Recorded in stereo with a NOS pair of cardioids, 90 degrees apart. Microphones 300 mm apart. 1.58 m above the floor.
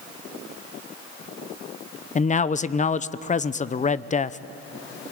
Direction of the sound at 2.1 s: 25° left.